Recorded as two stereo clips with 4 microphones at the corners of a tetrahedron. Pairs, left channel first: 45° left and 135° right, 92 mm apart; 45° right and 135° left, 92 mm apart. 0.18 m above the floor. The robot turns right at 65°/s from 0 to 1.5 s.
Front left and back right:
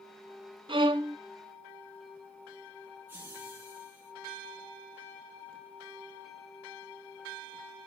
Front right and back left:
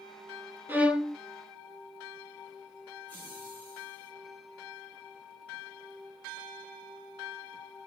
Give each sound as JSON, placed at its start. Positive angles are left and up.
{"t": 0.7, "sound": "a violin", "azimuth_deg": -160, "distance_m": 0.5}
{"t": 3.1, "sound": "laughter", "azimuth_deg": -95, "distance_m": 1.4}